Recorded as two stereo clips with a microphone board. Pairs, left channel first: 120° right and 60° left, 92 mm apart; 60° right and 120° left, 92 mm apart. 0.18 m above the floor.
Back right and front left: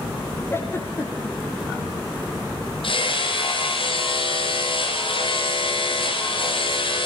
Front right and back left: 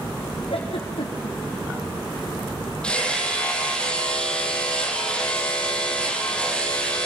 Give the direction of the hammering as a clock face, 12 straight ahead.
5 o'clock.